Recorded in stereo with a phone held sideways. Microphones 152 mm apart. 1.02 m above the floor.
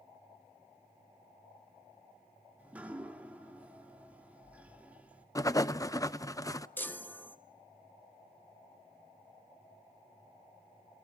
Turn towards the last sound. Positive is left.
turn(degrees=15)  # may be behind; listen again after turning